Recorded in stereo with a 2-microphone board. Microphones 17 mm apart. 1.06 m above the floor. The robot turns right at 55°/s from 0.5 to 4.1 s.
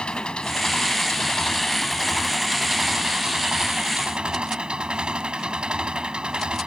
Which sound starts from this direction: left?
An engine running, at 0.0 s.